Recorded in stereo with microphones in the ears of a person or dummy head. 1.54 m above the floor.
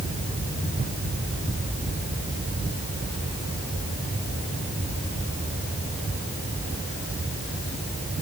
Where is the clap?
No clap in this recording.